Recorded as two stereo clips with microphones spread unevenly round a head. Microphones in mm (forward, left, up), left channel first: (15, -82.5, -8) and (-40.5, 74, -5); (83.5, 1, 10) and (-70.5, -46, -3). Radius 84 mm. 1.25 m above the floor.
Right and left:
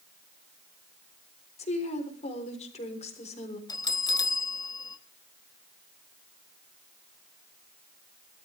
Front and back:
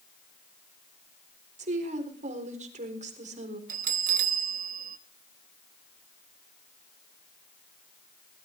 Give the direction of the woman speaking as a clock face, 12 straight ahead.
4 o'clock.